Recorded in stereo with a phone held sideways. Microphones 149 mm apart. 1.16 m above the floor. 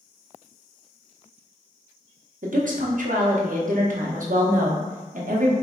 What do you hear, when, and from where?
2.4 s a woman speaking: 60° right (ahead or behind), 0.7 m